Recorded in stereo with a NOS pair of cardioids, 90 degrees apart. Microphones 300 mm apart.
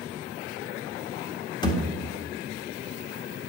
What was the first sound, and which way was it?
A thud, 15° left.